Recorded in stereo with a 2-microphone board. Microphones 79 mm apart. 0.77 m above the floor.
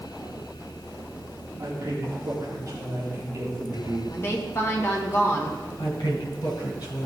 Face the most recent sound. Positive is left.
turn(degrees=60)  # may be behind; listen again after turning